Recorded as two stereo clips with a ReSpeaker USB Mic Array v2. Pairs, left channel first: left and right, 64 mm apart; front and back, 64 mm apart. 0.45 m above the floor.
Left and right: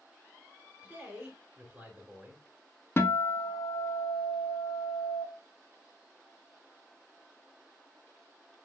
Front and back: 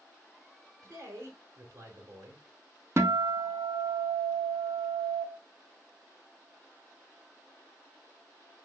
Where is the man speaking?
155° right, 1.5 m.